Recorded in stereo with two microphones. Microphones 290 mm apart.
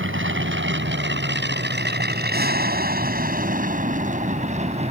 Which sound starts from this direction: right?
An aircraft, at 0.0 s.